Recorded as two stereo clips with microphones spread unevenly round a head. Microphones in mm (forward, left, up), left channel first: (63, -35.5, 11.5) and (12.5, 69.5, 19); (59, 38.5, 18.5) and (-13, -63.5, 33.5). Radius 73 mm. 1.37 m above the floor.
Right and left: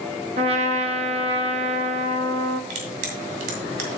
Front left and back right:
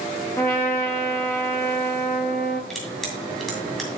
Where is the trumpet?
130° left, 0.8 m.